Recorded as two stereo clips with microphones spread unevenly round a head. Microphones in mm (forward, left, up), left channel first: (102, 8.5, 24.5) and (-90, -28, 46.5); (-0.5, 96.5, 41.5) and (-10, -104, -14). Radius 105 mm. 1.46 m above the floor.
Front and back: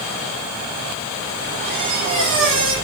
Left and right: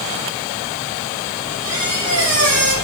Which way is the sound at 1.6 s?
145° right.